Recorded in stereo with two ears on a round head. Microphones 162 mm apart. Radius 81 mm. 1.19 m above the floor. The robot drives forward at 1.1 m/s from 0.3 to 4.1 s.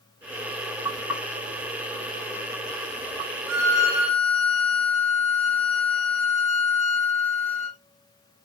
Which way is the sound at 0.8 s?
15° right (ahead or behind).